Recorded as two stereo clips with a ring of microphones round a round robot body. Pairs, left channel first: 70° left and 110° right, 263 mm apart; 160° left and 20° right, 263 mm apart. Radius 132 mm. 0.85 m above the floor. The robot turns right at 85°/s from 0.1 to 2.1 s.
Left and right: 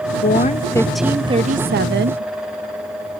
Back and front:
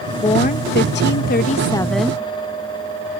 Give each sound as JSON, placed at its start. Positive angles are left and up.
{"t": 0.2, "sound": "a woman speaking", "azimuth_deg": 95}